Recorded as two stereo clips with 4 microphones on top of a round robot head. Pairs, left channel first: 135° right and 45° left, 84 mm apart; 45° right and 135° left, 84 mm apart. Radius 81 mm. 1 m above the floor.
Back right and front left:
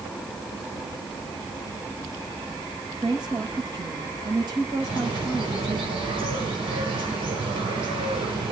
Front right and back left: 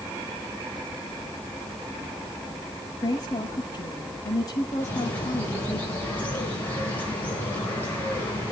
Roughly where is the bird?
Ahead left.